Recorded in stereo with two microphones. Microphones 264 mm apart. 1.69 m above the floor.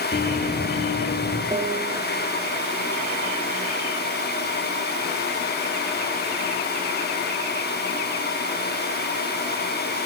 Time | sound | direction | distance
0.1 | running footsteps | 45° left (ahead or behind) | 2.5 m
1.5 | a piano | 15° right (ahead or behind) | 2.0 m